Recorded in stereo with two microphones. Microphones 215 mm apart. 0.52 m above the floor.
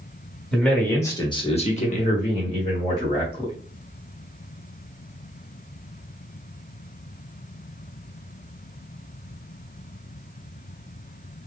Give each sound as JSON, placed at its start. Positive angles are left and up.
{"t": 0.5, "sound": "a man speaking", "side_deg": 5, "distance_m": 1.4}